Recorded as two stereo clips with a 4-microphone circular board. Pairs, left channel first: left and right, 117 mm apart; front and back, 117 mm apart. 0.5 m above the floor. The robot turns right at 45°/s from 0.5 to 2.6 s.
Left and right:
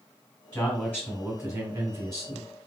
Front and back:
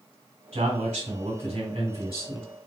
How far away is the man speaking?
About 2 m.